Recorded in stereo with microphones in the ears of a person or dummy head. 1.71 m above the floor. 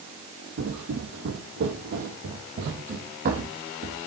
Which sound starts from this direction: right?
Footsteps, at 0.6 s.